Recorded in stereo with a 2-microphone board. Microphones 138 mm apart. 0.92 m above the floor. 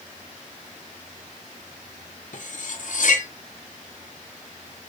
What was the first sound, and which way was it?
Cutlery clinking, 65° left (ahead or behind).